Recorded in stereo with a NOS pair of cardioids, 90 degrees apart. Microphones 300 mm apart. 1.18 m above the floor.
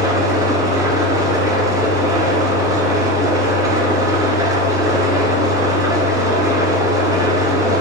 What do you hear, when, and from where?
0.0 s an engine running: 10° right, 1.6 m